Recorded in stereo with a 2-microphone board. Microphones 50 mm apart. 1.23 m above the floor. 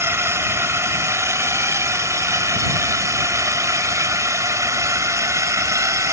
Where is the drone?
60° right (ahead or behind); by 6.1 s 75° right (ahead or behind).